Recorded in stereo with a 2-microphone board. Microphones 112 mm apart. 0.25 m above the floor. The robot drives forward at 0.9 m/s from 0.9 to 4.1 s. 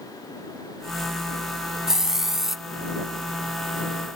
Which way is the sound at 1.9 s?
5° right (ahead or behind).